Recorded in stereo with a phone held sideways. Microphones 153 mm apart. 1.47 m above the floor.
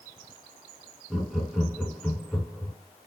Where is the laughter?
5° right (ahead or behind), 2.5 m.